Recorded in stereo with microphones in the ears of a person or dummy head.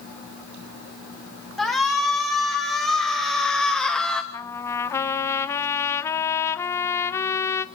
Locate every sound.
1.6 s a shout: centre (ahead or behind), 6 m; by 4.2 s 5° left (ahead or behind), 3 m
4.3 s a trumpet: 20° left (ahead or behind), 1.1 m